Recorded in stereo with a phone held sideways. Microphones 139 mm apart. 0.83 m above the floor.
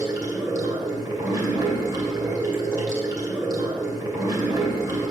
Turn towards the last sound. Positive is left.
turn(degrees=-25)  # may be behind; listen again after turning